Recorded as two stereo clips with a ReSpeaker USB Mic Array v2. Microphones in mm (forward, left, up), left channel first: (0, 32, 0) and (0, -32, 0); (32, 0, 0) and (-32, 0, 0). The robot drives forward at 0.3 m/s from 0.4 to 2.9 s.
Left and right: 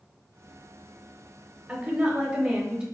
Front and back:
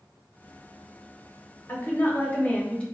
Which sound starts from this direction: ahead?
A woman speaking, at 1.7 s.